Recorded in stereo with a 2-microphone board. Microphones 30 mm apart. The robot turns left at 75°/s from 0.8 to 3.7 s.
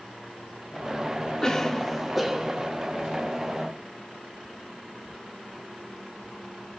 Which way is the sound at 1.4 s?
20° left (ahead or behind).